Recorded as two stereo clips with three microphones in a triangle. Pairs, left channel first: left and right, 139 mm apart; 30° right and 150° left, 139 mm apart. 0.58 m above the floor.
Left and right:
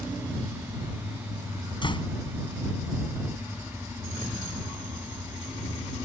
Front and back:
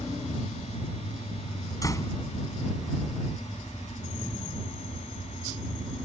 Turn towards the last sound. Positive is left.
turn(degrees=35)